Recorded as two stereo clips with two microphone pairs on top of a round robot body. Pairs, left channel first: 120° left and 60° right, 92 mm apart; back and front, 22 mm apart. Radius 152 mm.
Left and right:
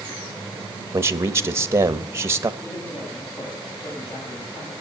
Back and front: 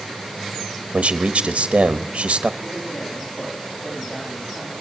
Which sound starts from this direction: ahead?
A man speaking, at 0.9 s.